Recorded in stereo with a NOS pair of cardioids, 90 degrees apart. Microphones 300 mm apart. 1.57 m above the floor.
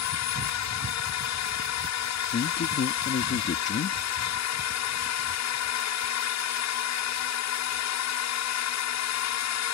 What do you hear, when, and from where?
0.0 s a drone: 65° left
2.3 s a man speaking: 40° left